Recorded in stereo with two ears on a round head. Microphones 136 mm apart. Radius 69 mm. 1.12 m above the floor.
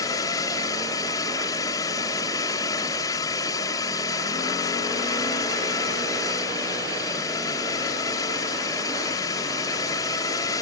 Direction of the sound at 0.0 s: 25° left (ahead or behind).